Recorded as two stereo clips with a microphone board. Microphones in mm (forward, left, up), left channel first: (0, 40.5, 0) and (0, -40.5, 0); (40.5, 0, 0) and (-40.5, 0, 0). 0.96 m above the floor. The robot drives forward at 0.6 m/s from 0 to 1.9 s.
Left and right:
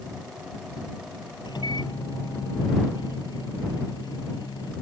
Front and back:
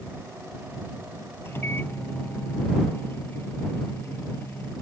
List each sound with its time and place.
1.4 s a microwave: 60° left